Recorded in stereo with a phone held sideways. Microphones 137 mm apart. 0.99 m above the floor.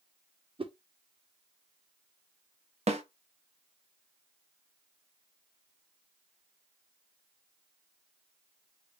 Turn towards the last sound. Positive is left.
turn(degrees=-50)  # may be behind; listen again after turning